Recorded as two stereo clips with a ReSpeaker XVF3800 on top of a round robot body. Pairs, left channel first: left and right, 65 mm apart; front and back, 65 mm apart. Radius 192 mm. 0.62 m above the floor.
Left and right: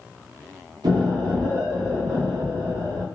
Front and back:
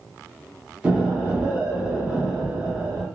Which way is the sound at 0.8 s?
100° right.